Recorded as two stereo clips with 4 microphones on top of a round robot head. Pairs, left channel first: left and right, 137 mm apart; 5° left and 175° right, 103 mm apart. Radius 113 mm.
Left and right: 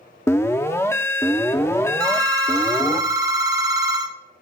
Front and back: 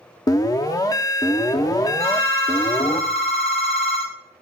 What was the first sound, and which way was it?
An alarm, 30° left.